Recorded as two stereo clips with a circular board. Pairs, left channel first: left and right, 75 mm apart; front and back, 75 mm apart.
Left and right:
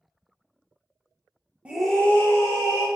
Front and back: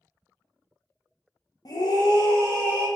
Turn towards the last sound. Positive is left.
turn(degrees=50)